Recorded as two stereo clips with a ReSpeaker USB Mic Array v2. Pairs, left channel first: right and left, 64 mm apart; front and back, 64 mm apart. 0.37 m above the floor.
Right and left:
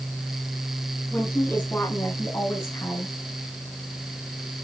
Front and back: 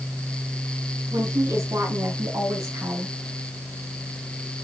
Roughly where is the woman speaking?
Behind right.